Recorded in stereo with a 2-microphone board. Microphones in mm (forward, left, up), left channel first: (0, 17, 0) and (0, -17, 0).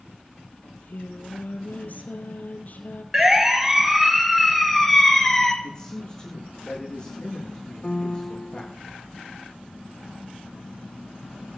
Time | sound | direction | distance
0.6 | singing | 50° left (ahead or behind) | 2 m
3.1 | a siren | 15° right (ahead or behind) | 3 m
5.6 | a man speaking | 20° left (ahead or behind) | 7 m
7.8 | a piano | 25° left (ahead or behind) | 0.7 m